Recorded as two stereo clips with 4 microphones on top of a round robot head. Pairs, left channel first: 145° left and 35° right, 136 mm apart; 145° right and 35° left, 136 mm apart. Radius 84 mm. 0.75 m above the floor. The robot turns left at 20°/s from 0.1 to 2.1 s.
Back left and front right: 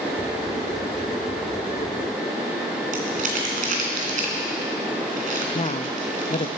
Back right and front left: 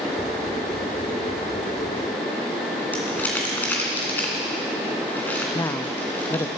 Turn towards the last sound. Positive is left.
turn(degrees=155)